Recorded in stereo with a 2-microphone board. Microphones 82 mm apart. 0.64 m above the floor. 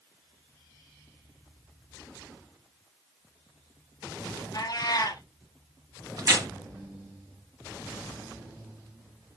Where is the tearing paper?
45° right (ahead or behind), 1.7 m.